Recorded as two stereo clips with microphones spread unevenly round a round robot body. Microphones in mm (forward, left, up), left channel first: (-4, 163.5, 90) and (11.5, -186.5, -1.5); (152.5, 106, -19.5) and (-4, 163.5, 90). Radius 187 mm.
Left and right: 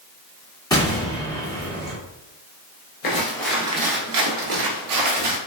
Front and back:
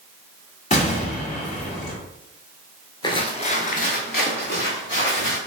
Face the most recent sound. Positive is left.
turn(degrees=-90)